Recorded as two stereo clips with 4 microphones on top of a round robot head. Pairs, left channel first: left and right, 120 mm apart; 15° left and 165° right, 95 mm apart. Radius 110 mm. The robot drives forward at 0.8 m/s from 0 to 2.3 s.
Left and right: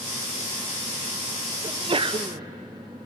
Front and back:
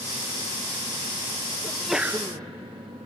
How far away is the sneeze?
About 0.6 m.